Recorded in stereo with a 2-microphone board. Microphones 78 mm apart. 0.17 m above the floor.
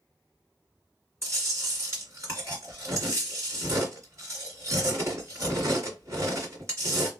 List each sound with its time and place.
1.2 s chewing: 35° right (ahead or behind), 2.0 m